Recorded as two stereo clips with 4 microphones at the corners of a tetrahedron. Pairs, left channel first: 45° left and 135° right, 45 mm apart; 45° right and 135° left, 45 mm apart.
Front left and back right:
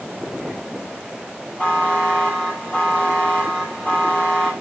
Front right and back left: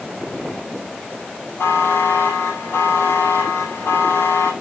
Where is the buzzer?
25° right, 6 m.